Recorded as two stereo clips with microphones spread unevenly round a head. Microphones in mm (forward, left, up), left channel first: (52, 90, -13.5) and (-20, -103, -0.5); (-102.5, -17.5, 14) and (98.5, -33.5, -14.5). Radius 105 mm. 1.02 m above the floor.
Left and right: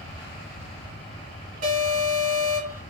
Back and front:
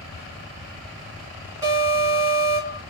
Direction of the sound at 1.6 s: 70° right.